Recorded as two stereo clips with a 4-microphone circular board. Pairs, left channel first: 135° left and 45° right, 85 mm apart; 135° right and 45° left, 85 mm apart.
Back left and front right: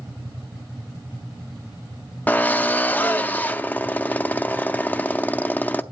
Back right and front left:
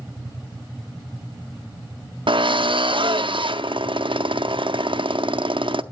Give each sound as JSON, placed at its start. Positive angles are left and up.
{"t": 2.3, "sound": "a drill", "azimuth_deg": 65, "distance_m": 0.6}